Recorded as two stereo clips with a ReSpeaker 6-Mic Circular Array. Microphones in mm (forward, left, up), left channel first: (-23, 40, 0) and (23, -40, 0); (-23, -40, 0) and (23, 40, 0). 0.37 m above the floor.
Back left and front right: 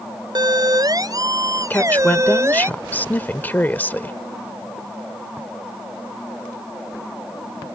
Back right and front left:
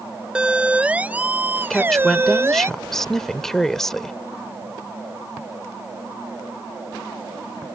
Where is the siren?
20° right; by 2.7 s straight ahead.